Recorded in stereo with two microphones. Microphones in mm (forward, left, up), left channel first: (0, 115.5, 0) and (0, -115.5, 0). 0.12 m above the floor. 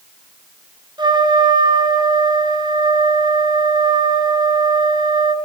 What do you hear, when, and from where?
1.0 s a trumpet: 20° right (ahead or behind), 1.3 m